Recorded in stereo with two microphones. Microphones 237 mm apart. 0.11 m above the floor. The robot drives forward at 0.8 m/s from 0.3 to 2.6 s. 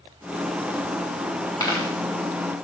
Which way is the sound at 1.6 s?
15° left (ahead or behind).